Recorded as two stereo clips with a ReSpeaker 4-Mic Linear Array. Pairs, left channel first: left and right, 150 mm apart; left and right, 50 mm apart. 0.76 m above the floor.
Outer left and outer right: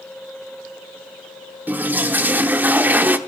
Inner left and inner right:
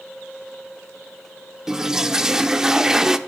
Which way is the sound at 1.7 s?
10° right (ahead or behind).